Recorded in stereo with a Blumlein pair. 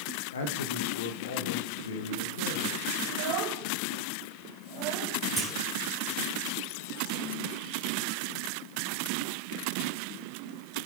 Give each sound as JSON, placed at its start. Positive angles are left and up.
{"t": 0.3, "sound": "a man speaking", "azimuth_deg": 65, "distance_m": 1.9}
{"t": 3.0, "sound": "a child speaking", "azimuth_deg": -40, "distance_m": 4.5}
{"t": 5.4, "sound": "a clunk", "azimuth_deg": -10, "distance_m": 4.0}